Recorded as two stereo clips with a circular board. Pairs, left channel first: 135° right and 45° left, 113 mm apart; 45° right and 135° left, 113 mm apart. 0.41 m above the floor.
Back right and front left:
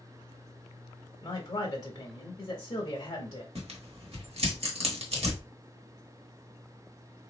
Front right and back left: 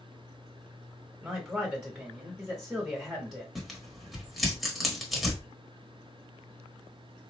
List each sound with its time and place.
1.2 s a man speaking: 140° right, 0.9 m
3.5 s tearing paper: 45° left, 1.2 m